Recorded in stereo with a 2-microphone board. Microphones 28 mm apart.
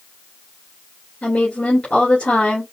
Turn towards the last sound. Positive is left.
turn(degrees=60)  # may be behind; listen again after turning